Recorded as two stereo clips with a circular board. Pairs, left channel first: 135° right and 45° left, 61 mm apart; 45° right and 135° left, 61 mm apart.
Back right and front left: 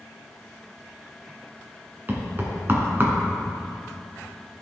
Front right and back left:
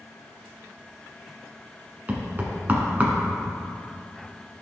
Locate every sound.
2.1 s knocking: 85° left, 1.5 m